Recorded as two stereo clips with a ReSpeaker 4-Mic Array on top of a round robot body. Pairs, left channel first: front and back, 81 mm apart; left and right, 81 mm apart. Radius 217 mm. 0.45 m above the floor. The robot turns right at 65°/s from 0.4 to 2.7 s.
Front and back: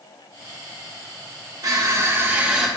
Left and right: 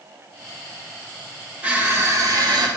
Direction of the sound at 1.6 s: 160° right.